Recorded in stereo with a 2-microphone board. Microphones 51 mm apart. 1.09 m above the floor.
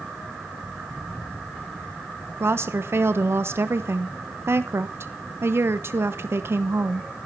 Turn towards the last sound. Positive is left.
turn(degrees=-55)  # may be behind; listen again after turning